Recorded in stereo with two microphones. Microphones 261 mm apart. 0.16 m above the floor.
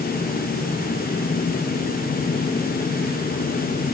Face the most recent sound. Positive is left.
No sound to turn to.